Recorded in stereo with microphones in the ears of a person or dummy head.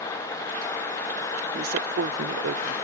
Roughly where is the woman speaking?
Right.